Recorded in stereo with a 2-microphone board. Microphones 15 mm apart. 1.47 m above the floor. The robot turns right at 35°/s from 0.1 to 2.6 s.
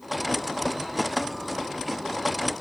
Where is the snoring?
No snoring in this recording.